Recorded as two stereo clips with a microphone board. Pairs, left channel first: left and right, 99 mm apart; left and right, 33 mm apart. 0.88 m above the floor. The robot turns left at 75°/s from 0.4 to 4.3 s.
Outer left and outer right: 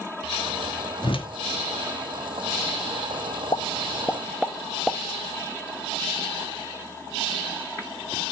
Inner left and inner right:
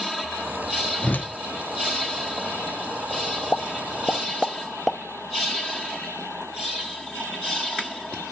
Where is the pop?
45° left (ahead or behind), 0.8 m; by 5.0 s 5° right (ahead or behind), 0.8 m.